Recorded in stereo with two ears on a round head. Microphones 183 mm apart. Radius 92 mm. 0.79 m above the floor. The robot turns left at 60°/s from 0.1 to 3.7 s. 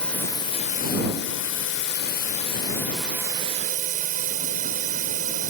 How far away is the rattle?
No rattle in this recording.